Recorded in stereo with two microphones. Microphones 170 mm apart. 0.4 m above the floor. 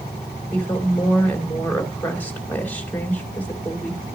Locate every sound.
0.5 s a woman speaking: 10° left (ahead or behind), 2 m